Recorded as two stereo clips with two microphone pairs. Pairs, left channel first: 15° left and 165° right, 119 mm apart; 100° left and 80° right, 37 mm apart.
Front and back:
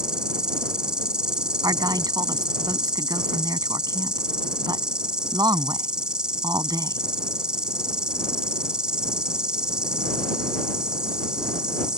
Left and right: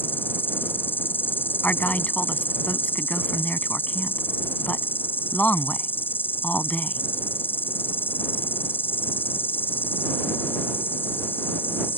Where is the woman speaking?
140° left.